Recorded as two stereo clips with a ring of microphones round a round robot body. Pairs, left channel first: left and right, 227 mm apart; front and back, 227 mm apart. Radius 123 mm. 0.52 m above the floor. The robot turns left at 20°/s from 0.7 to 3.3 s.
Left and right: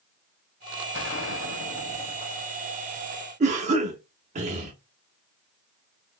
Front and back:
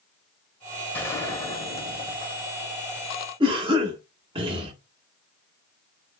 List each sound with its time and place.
0.9 s a gunshot: 80° left, 1.1 m; by 2.9 s 40° left, 1.1 m
3.4 s a cough: 125° right, 0.7 m